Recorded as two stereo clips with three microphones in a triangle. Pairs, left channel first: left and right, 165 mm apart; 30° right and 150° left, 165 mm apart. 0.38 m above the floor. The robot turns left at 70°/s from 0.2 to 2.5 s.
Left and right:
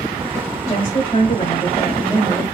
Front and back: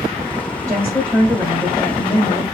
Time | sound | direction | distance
0.7 | a woman speaking | 135° left | 1.2 m